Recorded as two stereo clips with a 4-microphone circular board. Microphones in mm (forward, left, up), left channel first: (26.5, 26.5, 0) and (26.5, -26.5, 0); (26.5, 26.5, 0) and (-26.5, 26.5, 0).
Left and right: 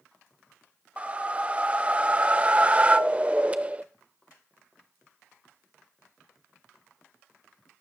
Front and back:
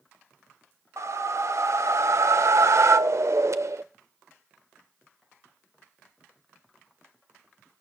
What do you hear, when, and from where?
1.0 s a whoosh: 155° right, 0.6 m